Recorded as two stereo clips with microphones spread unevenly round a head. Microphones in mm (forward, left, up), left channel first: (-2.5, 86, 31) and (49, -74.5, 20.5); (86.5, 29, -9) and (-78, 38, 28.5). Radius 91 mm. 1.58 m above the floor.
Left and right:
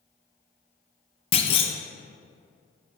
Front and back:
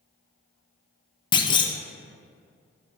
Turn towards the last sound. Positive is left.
turn(degrees=65)